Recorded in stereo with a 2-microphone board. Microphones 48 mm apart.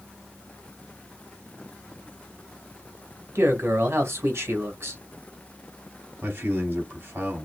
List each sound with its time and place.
3.4 s a man speaking: 55° right (ahead or behind), 2.5 m
6.2 s a man speaking: 45° right (ahead or behind), 3 m